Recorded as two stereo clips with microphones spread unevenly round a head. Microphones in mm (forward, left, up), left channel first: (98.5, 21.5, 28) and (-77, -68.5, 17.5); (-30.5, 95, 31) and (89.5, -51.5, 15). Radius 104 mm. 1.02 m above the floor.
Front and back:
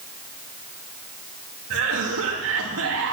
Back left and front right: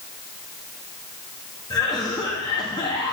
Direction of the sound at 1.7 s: 160° right.